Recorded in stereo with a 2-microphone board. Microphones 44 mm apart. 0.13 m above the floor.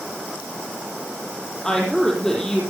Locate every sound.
1.6 s a woman speaking: 20° left (ahead or behind), 4.5 m